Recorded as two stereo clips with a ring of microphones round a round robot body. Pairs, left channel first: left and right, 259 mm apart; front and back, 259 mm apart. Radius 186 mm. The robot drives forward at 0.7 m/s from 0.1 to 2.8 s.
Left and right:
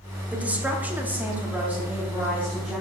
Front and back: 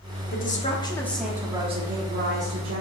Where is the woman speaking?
10° right, 1.2 m; by 2.8 s 175° right, 1.5 m.